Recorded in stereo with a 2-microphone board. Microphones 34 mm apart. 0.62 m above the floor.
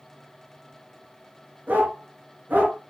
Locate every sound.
1.7 s a dog barking: 65° right (ahead or behind), 4 m